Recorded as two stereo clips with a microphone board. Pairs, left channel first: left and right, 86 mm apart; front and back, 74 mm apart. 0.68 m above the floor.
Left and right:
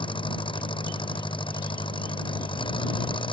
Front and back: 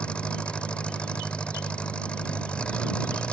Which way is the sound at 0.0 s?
75° left.